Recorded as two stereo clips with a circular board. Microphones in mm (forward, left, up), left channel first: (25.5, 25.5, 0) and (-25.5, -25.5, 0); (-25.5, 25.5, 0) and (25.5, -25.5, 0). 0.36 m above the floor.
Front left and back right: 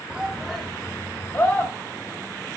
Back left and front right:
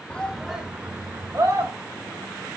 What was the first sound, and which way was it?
A shout, 175° left.